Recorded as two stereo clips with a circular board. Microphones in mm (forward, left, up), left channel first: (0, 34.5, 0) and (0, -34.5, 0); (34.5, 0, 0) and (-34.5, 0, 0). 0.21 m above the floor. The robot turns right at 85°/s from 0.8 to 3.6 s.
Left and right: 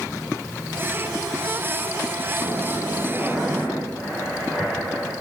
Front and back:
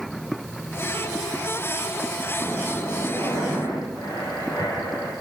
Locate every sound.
2.4 s breathing: 105° right, 6.5 m; by 5.1 s straight ahead, 6.5 m